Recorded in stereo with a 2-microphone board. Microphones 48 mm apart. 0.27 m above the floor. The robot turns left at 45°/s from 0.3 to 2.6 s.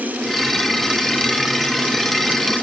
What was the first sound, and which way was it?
Only background noise.